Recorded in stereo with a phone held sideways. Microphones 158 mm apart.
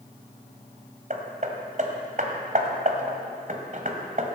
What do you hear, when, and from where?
1.1 s hammering: 55° right (ahead or behind), 1.9 m